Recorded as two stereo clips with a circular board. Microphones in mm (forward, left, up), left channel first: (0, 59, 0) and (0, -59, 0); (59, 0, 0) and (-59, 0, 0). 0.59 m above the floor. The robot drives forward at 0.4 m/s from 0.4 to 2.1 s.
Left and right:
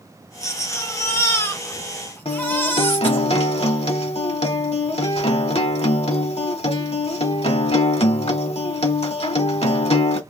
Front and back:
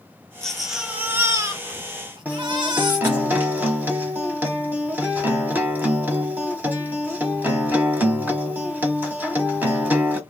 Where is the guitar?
110° left, 1.1 m.